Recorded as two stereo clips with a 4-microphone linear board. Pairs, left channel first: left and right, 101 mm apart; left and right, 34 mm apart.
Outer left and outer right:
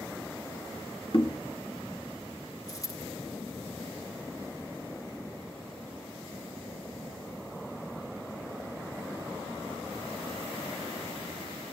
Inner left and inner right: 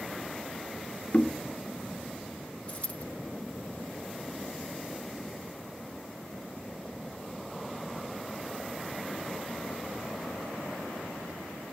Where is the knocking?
60° left (ahead or behind), 1.8 m.